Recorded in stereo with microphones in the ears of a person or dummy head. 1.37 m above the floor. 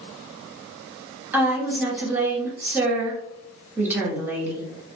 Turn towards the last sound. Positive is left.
turn(degrees=-15)  # may be behind; listen again after turning